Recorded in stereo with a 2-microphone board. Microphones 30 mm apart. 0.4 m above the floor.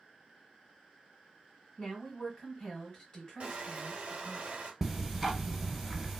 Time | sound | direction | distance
1.8 | a woman speaking | 30° left (ahead or behind) | 1.8 m
3.4 | crushing | 45° right (ahead or behind) | 1.1 m
4.8 | ticking | centre (ahead or behind) | 1.0 m